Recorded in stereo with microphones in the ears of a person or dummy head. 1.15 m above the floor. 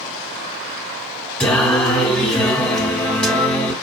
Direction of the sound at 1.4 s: 5° left (ahead or behind).